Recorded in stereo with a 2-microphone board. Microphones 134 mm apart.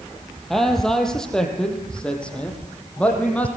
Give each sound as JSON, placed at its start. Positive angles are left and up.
{"t": 0.5, "sound": "a man speaking", "side_deg": 0, "distance_m": 4.5}